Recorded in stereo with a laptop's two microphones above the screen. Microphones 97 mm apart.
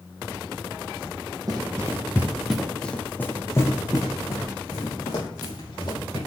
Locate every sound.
1.5 s running footsteps: 40° right (ahead or behind), 1.4 m; by 6.2 s 45° left (ahead or behind), 4 m